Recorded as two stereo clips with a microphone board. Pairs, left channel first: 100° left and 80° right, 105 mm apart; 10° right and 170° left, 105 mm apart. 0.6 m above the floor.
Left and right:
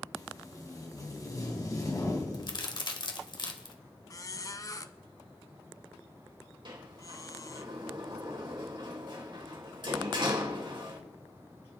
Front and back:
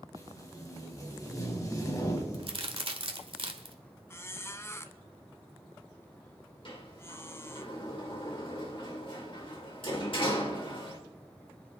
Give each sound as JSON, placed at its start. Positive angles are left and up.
{"t": 0.1, "sound": "tape being pulled", "azimuth_deg": 45, "distance_m": 2.5}
{"t": 2.3, "sound": "a crack", "azimuth_deg": 140, "distance_m": 1.4}
{"t": 4.1, "sound": "a squeak", "azimuth_deg": 50, "distance_m": 0.7}
{"t": 6.7, "sound": "a sliding door", "azimuth_deg": -45, "distance_m": 2.5}